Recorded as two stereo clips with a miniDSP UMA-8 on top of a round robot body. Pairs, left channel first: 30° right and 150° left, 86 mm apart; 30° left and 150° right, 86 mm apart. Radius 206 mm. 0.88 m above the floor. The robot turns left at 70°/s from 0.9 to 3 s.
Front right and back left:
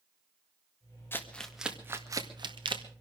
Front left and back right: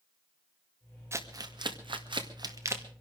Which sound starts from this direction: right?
Crumpling, at 1.1 s.